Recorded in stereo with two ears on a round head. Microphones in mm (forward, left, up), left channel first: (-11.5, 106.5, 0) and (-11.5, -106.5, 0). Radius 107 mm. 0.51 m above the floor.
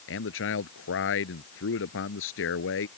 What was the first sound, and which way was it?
A man speaking, 60° left (ahead or behind).